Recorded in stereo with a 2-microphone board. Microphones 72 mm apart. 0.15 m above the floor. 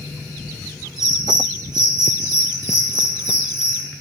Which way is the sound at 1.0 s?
70° right (ahead or behind).